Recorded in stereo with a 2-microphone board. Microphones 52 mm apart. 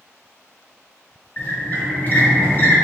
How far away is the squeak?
About 1.5 m.